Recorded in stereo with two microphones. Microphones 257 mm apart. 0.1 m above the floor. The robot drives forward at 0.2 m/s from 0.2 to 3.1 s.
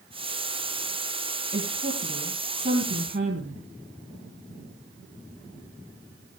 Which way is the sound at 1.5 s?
50° right (ahead or behind).